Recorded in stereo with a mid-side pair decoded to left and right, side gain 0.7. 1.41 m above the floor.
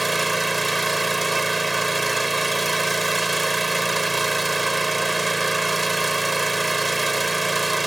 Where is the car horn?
No car horn in this recording.